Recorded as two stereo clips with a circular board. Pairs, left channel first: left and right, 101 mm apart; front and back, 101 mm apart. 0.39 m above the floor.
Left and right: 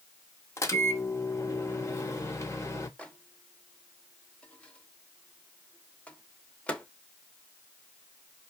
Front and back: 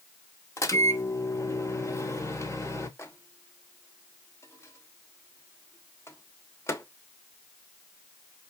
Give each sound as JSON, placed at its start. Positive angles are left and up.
{"t": 0.6, "sound": "a microwave", "azimuth_deg": 45, "distance_m": 0.9}
{"t": 3.0, "sound": "a microwave", "azimuth_deg": 25, "distance_m": 0.8}